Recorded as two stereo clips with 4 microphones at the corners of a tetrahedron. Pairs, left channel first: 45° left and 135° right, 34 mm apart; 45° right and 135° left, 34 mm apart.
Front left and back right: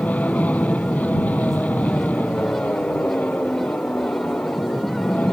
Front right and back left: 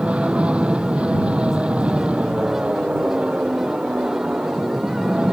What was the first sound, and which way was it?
An aircraft, 80° left.